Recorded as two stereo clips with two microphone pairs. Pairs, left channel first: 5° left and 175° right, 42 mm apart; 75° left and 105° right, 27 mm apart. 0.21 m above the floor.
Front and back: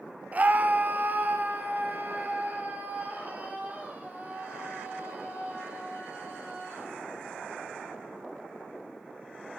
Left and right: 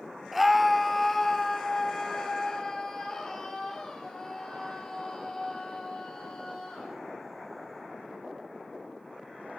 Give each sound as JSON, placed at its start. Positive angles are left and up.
{"t": 0.3, "sound": "a scream", "azimuth_deg": 170, "distance_m": 1.3}